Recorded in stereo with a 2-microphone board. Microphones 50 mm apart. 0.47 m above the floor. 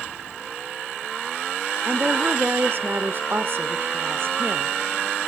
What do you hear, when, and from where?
1.9 s a woman speaking: 50° right (ahead or behind), 1.0 m